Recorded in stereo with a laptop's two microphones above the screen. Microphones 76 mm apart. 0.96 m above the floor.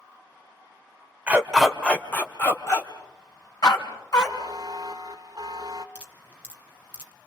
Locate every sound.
1.3 s a dog barking: 20° right (ahead or behind), 1.6 m; by 4.3 s 60° left (ahead or behind), 4.5 m
4.2 s a buzzer: 50° right (ahead or behind), 1.7 m
6.0 s dripping: 15° right (ahead or behind), 2 m